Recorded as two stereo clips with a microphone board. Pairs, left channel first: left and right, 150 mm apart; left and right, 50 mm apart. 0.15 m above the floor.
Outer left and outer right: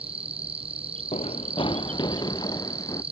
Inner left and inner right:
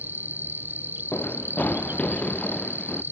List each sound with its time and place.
0.0 s an insect: 40° right (ahead or behind)
1.1 s running footsteps: 45° left (ahead or behind); by 3.0 s 25° left (ahead or behind)